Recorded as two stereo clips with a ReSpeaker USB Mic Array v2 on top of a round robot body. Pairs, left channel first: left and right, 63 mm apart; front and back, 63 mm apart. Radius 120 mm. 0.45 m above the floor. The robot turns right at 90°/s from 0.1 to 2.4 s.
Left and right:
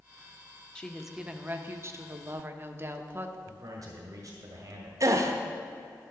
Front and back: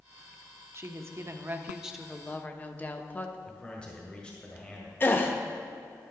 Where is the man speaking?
70° right, 1.7 m.